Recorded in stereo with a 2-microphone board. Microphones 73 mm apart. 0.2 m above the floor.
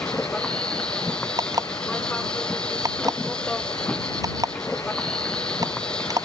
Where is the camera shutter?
I don't hear a camera shutter.